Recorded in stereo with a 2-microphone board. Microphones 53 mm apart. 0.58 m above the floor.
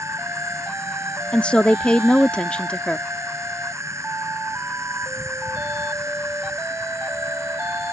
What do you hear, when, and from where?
0.0 s an insect: 65° right (ahead or behind)
1.3 s a woman speaking: 20° left (ahead or behind)